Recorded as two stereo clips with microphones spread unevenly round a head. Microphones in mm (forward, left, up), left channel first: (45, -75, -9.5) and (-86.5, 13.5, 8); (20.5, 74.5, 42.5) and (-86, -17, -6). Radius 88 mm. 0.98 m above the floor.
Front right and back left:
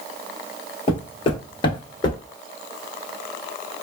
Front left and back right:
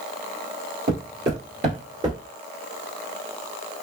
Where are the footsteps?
95° right, 1.6 m; by 2.2 s 35° right, 0.9 m.